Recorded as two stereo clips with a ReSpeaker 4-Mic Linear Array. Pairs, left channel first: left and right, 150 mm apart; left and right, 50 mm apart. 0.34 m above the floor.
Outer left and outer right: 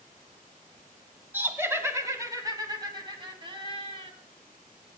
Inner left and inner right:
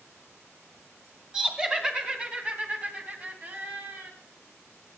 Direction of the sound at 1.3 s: 15° right (ahead or behind).